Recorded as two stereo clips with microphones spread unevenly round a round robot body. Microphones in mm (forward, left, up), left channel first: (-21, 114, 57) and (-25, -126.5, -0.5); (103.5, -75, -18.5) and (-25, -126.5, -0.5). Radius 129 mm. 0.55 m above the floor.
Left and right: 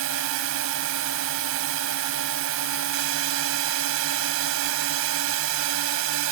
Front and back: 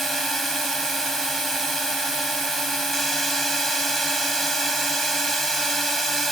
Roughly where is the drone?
Ahead right.